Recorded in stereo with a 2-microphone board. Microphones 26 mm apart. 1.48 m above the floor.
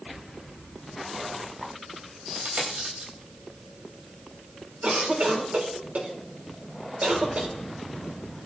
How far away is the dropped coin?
About 3.5 m.